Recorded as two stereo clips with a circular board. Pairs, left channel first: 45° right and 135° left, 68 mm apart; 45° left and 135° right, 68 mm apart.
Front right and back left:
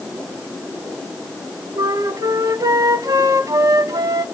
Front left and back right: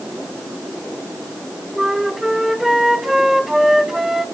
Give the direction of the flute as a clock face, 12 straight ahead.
7 o'clock.